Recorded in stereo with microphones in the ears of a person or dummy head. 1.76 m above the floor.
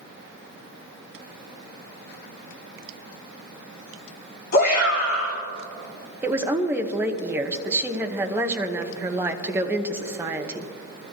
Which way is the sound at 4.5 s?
40° left (ahead or behind).